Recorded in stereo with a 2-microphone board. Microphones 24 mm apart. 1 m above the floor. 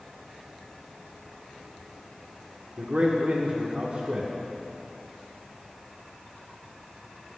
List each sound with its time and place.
2.8 s a man speaking: 45° right (ahead or behind), 0.6 m